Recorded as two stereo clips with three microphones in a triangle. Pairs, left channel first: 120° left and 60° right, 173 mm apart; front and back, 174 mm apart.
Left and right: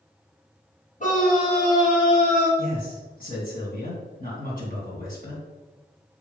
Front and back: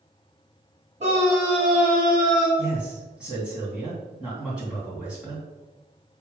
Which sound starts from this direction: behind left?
A scream, at 1.0 s.